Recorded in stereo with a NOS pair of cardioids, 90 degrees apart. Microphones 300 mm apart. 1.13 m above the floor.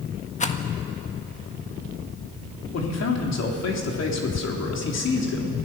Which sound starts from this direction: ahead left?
A man speaking, at 2.7 s.